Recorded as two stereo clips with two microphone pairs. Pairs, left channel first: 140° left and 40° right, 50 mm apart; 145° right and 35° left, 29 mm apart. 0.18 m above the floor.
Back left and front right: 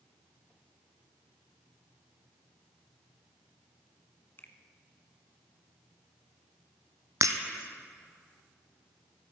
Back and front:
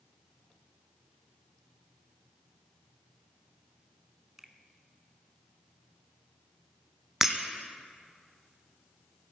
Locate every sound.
4.4 s a finger snap: 105° left, 1.6 m
7.2 s breaking glass: 45° right, 1.5 m